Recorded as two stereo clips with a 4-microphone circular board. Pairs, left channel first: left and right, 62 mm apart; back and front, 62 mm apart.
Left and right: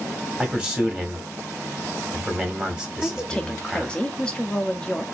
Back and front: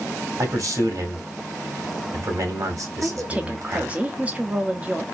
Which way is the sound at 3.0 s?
35° left.